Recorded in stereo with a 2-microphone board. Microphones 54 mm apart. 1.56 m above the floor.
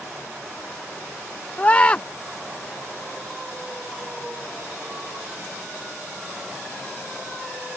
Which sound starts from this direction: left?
A scream, at 1.6 s.